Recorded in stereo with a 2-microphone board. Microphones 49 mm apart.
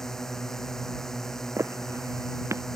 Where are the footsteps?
70° right (ahead or behind); by 2.6 s 85° right.